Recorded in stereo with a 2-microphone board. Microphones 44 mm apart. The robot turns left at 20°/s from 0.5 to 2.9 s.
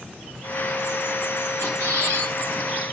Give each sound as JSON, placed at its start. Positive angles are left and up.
{"t": 1.6, "sound": "a squeak", "side_deg": -70, "distance_m": 5.5}